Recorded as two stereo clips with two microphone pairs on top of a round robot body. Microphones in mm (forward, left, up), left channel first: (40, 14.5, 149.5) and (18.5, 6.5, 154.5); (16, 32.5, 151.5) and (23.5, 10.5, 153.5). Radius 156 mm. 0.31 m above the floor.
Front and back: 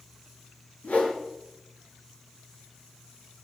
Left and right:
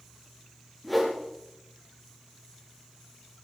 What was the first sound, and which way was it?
A whoosh, 20° left.